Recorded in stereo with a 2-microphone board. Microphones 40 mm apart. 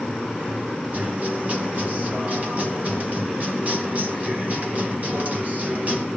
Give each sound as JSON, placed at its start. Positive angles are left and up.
{"t": 0.9, "sound": "a guitar", "side_deg": -45, "distance_m": 2.5}